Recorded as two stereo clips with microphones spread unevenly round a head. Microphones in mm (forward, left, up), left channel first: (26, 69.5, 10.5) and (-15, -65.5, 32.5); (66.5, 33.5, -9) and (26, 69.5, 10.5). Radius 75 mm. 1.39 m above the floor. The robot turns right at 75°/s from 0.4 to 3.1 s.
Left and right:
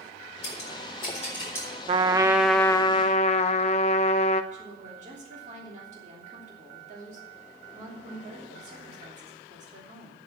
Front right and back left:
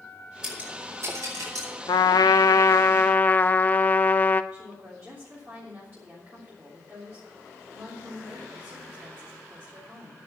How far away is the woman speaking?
About 3 m.